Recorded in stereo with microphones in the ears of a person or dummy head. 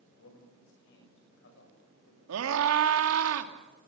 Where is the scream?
80° right, 2.5 m.